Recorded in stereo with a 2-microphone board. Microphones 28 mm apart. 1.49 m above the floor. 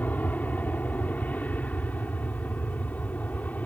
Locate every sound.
0.0 s an aircraft: 75° left (ahead or behind)